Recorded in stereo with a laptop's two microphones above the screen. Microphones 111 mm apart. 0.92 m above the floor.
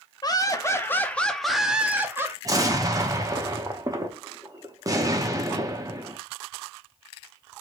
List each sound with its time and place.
0.2 s laughter: 35° left (ahead or behind), 1.3 m; by 2.4 s 25° right (ahead or behind), 1.3 m
2.5 s an explosion: 30° right (ahead or behind), 1.1 m